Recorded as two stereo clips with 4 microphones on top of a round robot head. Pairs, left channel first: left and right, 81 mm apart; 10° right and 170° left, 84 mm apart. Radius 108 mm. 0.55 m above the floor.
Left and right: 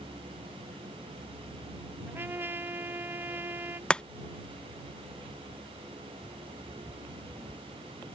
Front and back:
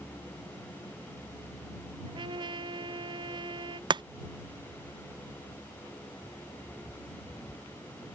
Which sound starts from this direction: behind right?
A trumpet, at 2.1 s.